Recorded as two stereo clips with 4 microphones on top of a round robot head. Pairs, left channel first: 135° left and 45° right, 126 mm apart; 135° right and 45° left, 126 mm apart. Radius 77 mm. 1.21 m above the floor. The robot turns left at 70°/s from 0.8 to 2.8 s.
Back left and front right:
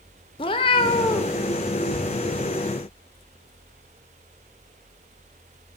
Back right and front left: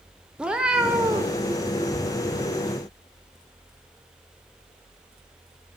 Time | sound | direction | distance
0.4 | a cat meowing | 125° left | 0.5 m